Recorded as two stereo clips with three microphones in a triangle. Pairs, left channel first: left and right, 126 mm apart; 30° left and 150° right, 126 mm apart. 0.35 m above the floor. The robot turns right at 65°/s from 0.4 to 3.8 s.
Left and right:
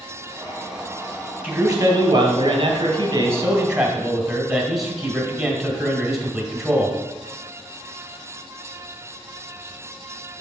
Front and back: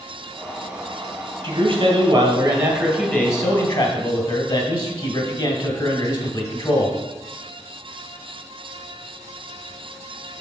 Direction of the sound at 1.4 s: 155° right.